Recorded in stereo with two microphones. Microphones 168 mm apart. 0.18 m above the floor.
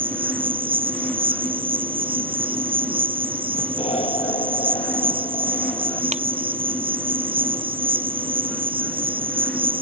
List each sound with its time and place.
0.0 s an insect: 30° right (ahead or behind)
3.8 s an explosion: 35° left (ahead or behind)
6.1 s a ringtone: 40° right (ahead or behind)